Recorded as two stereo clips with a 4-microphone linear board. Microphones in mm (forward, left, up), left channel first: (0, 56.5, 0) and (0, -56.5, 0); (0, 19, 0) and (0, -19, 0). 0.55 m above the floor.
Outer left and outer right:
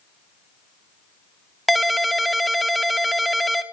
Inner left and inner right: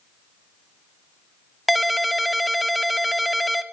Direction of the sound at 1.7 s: Centre (ahead or behind).